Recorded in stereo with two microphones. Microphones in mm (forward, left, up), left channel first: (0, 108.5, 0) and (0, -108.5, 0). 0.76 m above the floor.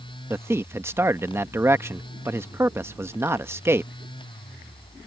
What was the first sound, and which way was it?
A man speaking, 10° right (ahead or behind).